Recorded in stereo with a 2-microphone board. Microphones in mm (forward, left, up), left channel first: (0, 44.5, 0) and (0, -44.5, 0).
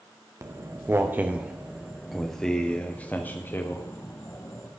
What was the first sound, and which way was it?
Footsteps, 35° right (ahead or behind).